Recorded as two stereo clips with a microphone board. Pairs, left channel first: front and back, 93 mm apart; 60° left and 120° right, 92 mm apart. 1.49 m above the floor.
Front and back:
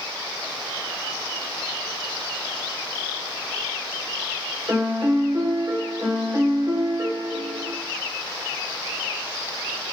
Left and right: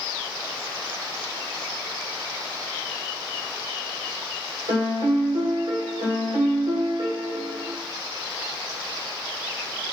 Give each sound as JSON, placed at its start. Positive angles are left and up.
{"t": 4.7, "sound": "a piano", "azimuth_deg": -130, "distance_m": 1.2}